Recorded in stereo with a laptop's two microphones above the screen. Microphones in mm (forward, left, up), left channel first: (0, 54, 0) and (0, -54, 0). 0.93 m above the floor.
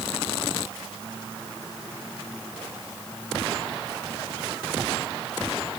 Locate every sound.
Only background noise.